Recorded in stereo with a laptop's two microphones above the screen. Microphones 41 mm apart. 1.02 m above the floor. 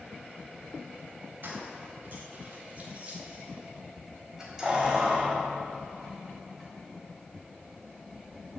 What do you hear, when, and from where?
1.4 s keys jangling: 50° right (ahead or behind), 3.5 m; by 8.3 s 15° left (ahead or behind), 5.5 m